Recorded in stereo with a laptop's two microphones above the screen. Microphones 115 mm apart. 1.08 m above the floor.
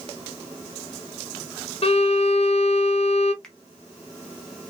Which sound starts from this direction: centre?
A finger snap, at 3.4 s.